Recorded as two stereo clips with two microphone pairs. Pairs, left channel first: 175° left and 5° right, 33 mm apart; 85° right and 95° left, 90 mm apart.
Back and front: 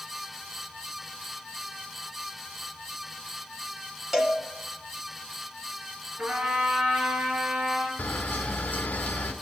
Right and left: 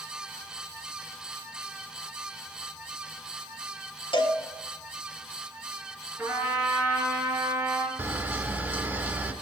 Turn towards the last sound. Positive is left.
turn(degrees=160)